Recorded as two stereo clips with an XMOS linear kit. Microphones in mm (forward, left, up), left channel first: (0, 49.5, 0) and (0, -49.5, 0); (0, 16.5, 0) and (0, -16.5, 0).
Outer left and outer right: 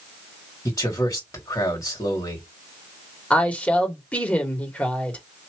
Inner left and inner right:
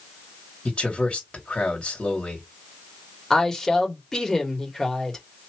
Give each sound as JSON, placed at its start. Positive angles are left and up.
{"t": 0.7, "sound": "a man speaking", "side_deg": 40, "distance_m": 2.5}
{"t": 3.3, "sound": "a woman speaking", "side_deg": 15, "distance_m": 1.7}